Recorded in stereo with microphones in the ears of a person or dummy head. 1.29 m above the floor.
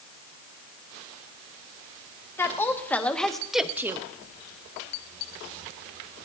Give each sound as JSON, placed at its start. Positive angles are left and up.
{"t": 2.4, "sound": "a woman speaking", "side_deg": 15, "distance_m": 1.7}